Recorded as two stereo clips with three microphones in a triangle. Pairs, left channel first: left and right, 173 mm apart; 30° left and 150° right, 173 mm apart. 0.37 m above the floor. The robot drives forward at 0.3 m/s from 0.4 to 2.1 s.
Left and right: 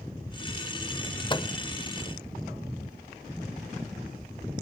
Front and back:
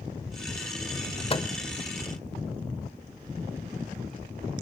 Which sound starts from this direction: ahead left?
A microwave, at 1.3 s.